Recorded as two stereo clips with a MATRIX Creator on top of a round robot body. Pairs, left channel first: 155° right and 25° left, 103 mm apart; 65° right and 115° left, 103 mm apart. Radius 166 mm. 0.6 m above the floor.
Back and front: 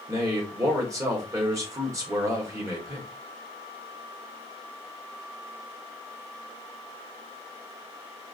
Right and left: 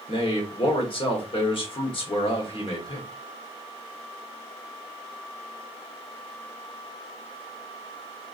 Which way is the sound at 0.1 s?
35° right.